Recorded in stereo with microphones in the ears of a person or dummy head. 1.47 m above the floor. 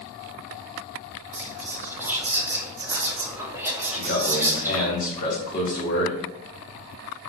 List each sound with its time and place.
1.3 s whispering: 10° right (ahead or behind), 0.9 m
3.9 s a man speaking: 40° left (ahead or behind), 1.7 m